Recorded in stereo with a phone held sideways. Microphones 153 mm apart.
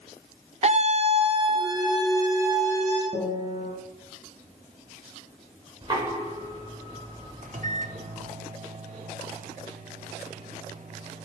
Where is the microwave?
55° right (ahead or behind), 1.3 m.